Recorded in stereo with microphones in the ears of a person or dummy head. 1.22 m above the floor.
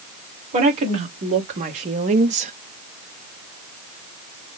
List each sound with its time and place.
0.5 s a woman speaking: 40° right (ahead or behind), 2 m; by 2.5 s 35° right (ahead or behind), 0.6 m